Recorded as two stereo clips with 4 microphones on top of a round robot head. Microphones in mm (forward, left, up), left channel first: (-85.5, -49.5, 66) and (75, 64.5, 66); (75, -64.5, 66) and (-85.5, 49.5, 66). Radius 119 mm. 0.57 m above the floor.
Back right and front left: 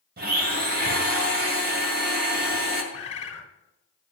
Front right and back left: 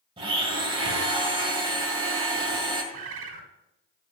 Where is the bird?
155° left, 1.2 m.